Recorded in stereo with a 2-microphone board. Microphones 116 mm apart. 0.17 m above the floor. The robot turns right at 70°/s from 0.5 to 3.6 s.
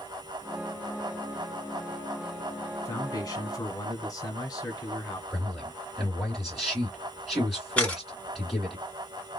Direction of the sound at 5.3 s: 5° right (ahead or behind).